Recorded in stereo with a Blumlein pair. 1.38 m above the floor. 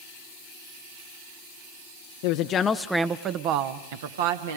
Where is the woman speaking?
50° left, 0.7 m; by 4.6 s 60° right, 1.8 m.